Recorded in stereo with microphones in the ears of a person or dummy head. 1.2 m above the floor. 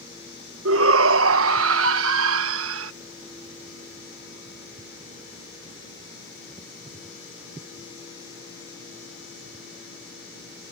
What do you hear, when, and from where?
0.7 s a shout: 65° right (ahead or behind)